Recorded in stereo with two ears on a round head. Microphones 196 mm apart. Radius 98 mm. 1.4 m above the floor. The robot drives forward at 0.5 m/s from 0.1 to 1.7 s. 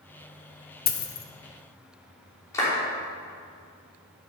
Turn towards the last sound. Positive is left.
turn(degrees=15)  # may be behind; listen again after turning